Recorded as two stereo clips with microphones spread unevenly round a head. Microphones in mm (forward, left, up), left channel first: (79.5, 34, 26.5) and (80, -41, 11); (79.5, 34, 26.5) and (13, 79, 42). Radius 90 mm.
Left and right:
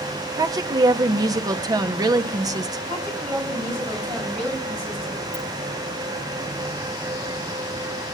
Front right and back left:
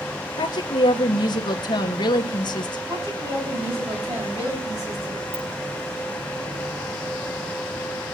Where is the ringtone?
135° left, 6 m.